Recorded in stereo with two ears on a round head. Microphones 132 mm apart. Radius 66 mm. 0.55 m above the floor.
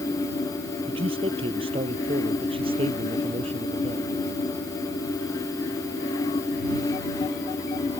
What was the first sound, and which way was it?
A man speaking, 40° right (ahead or behind).